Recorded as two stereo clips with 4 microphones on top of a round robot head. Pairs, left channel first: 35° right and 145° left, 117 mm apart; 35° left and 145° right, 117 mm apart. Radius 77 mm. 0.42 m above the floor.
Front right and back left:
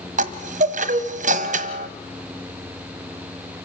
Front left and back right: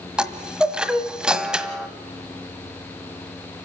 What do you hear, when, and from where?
0.2 s a chime: 130° left, 1.3 m